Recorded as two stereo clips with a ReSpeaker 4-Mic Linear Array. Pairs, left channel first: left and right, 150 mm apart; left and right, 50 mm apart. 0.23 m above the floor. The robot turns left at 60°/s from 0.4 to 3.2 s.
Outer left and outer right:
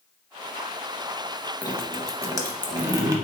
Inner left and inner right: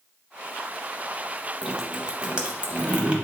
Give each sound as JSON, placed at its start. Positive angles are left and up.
{"t": 1.6, "sound": "dripping", "side_deg": -10, "distance_m": 0.6}